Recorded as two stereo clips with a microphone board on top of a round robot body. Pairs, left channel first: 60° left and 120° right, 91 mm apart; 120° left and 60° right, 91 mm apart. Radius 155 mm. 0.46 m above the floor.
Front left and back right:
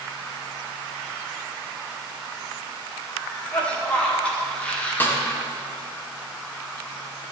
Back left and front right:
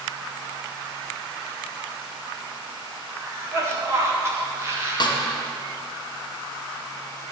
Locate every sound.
3.1 s a cough: 15° right, 1.9 m
5.0 s a snare drum: 120° left, 1.1 m